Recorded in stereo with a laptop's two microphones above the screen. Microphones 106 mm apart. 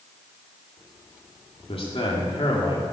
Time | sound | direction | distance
1.7 | a man speaking | 60° left (ahead or behind) | 2.5 m